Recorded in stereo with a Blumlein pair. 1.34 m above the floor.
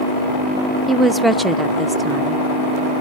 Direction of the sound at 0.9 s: 5° right.